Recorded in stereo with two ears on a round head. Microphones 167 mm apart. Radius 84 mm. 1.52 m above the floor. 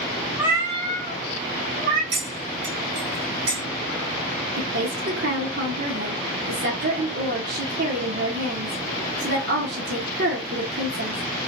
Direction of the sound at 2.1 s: 65° right (ahead or behind).